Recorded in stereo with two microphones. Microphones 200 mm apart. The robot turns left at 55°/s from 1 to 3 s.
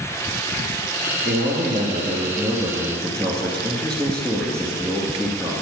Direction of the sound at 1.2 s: 90° right.